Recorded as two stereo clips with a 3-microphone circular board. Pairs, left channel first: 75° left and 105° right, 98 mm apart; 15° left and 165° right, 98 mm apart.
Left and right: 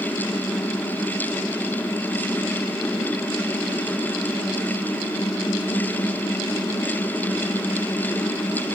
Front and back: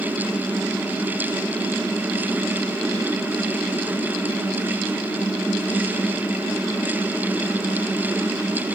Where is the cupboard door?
No cupboard door in this recording.